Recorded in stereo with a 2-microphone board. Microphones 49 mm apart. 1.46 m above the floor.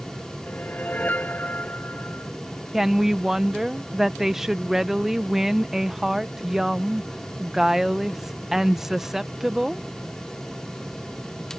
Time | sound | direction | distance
0.5 | a whoosh | 35° left (ahead or behind) | ?
2.7 | a woman speaking | 5° right (ahead or behind) | ?